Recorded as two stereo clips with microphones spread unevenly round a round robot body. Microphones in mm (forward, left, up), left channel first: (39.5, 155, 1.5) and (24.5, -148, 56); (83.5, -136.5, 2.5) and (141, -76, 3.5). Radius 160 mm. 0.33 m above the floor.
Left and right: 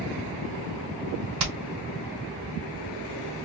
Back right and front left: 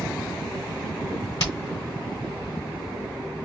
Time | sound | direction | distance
1.4 | hammering | 140° right | 2.5 m